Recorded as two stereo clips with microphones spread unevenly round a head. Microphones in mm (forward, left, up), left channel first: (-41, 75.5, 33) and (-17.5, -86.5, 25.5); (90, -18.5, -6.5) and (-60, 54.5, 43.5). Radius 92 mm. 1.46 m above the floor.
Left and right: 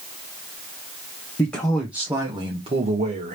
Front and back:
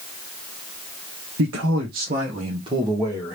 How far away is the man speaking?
About 1.1 m.